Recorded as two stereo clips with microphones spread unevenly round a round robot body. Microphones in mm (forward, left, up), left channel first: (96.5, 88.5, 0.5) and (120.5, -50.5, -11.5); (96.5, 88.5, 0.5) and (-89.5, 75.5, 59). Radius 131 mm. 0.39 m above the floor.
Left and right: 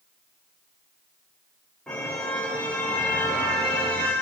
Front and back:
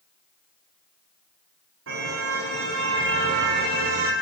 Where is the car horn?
170° right, 9.5 m.